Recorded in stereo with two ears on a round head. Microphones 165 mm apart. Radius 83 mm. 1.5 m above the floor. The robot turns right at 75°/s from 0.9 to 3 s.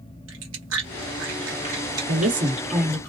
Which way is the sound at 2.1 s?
60° right.